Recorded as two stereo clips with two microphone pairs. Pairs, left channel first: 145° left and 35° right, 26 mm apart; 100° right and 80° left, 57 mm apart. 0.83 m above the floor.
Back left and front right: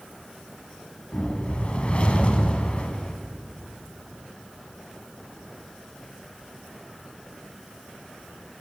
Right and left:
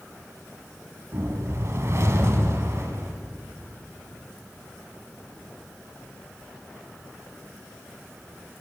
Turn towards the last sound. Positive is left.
turn(degrees=105)